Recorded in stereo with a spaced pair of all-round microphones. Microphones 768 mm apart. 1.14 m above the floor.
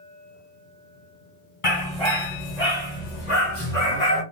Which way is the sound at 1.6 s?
40° left (ahead or behind).